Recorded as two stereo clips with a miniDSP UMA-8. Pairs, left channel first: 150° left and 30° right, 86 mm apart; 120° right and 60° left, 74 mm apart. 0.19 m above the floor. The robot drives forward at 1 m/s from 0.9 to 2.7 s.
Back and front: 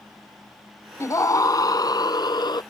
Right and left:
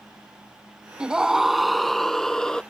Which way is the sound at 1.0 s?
130° left.